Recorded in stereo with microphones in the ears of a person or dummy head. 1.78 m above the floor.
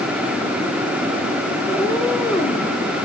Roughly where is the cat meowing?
Centre.